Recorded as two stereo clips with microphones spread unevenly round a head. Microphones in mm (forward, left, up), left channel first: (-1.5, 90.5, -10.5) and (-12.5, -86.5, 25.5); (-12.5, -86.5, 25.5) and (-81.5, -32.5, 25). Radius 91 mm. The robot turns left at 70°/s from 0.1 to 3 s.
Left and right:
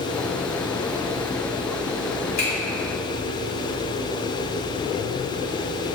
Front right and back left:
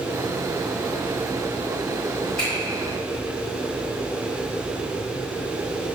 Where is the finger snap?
35° left, 1.8 m; by 2.5 s 25° left, 1.8 m.